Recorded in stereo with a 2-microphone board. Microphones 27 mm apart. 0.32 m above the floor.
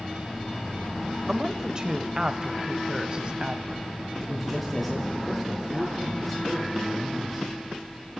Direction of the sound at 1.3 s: 25° right (ahead or behind).